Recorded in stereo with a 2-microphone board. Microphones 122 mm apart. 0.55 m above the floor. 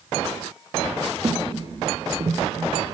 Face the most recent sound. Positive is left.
turn(degrees=-45)  # may be behind; listen again after turning